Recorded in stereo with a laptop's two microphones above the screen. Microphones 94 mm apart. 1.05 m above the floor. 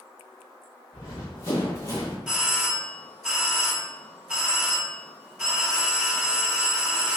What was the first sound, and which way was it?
Running footsteps, 35° left (ahead or behind).